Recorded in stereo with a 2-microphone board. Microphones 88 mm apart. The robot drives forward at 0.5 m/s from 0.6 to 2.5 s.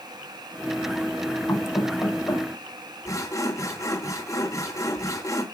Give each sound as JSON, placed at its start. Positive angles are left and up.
{"t": 1.5, "sound": "knocking", "side_deg": 30, "distance_m": 4.5}
{"t": 3.0, "sound": "sawing", "side_deg": 35, "distance_m": 3.0}